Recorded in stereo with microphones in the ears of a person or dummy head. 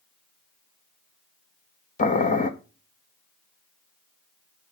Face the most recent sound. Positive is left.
turn(degrees=40)  # may be behind; listen again after turning